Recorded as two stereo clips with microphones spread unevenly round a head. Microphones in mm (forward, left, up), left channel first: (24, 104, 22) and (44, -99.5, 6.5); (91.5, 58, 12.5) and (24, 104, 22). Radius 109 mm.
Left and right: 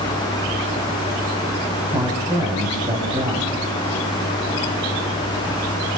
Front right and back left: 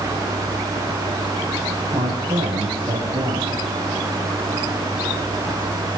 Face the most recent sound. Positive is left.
turn(degrees=-160)